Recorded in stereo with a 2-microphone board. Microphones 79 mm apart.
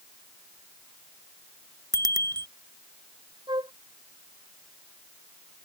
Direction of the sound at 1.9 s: 55° right (ahead or behind).